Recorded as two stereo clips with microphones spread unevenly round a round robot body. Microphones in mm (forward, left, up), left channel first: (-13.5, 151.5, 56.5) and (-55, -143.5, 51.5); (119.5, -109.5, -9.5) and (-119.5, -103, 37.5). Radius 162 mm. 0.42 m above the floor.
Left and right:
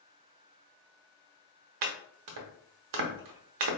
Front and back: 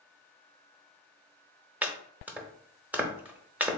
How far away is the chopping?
About 0.8 m.